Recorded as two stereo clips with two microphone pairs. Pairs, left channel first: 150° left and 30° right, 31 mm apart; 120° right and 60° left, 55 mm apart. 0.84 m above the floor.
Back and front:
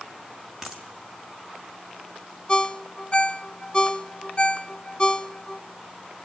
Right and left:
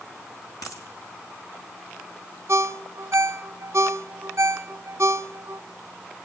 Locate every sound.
0.6 s a dropped coin: 115° right, 4.5 m
2.5 s a ringtone: 90° left, 0.7 m